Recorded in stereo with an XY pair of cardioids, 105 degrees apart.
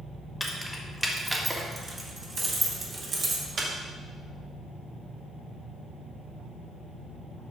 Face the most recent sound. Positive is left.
turn(degrees=-45)